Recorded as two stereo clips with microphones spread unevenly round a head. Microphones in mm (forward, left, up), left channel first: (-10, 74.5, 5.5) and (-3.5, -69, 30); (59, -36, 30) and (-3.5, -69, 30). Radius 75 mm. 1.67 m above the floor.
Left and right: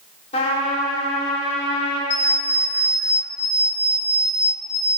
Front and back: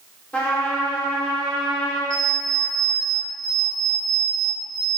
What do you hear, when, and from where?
0.3 s a trumpet: 90° left, 1.3 m
2.1 s an alarm clock: 80° left, 1.8 m